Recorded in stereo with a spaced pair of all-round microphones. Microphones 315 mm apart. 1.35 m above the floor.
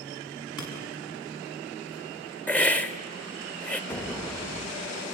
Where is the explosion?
5° left (ahead or behind), 0.9 m.